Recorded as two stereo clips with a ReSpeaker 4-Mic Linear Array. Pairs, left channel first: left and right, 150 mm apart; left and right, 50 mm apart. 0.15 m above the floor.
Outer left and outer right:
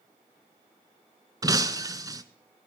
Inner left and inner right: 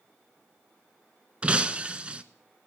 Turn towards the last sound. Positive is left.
turn(degrees=-25)  # may be behind; listen again after turning